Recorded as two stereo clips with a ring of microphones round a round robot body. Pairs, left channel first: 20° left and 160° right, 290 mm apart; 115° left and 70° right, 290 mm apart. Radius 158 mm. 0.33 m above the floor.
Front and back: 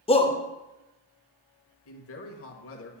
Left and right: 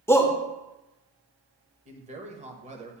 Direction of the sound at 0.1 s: 45° left.